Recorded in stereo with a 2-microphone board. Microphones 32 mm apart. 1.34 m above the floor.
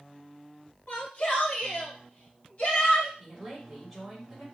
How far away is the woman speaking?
About 3.5 m.